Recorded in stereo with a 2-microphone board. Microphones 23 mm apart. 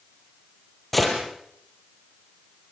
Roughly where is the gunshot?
Centre.